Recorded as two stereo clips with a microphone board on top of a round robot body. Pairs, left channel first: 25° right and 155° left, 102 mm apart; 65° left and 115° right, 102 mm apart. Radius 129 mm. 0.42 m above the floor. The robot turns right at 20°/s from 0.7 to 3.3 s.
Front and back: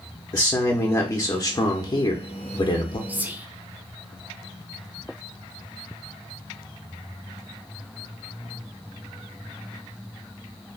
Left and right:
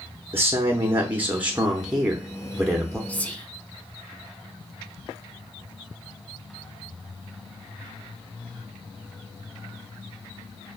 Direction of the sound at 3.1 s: 115° left.